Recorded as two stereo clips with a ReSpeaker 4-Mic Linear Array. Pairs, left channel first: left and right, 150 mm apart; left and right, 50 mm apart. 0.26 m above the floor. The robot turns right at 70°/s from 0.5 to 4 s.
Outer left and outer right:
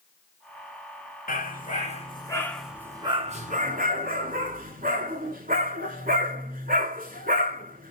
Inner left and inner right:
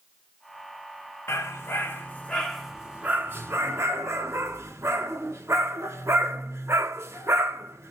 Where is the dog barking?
75° left (ahead or behind), 1.4 m; by 7.9 s 75° right (ahead or behind), 1.4 m.